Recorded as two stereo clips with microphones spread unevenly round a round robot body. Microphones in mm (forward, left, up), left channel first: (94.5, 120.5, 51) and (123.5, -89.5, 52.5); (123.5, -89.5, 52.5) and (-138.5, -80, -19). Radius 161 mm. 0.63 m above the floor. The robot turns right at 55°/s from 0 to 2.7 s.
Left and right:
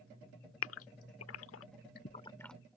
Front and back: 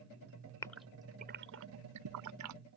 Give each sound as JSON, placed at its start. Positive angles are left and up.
{"t": 0.6, "sound": "a gasp", "azimuth_deg": 80}